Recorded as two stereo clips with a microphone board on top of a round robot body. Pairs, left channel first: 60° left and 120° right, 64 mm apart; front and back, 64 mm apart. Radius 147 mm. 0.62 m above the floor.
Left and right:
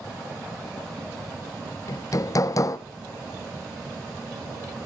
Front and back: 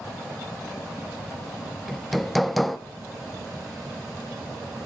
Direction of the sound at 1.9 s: 90° left.